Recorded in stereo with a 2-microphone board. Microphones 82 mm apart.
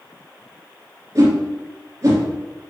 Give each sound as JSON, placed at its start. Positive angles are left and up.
{"t": 1.1, "sound": "a whoosh", "side_deg": -45, "distance_m": 3.0}